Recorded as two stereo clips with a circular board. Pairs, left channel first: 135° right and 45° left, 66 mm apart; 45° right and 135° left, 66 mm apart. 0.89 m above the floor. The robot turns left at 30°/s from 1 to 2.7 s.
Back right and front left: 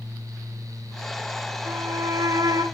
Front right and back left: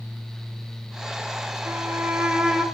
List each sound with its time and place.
1.6 s a violin: 85° left, 1.8 m; by 2.6 s 55° left, 1.8 m